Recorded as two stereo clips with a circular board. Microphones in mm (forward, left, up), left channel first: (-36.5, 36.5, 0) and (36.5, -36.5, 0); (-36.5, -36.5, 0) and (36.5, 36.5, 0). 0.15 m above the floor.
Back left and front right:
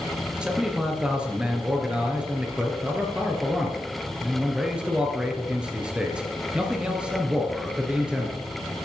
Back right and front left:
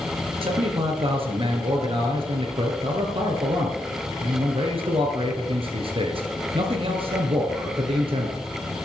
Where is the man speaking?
35° left, 2.5 m.